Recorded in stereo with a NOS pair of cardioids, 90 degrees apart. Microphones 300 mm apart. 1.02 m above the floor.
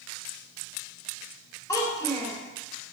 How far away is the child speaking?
About 0.9 m.